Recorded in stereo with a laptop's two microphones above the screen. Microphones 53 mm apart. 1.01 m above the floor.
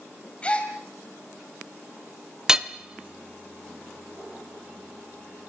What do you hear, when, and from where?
0.4 s a gasp: 20° left (ahead or behind), 2.5 m
2.5 s hammering: 10° right (ahead or behind), 1.2 m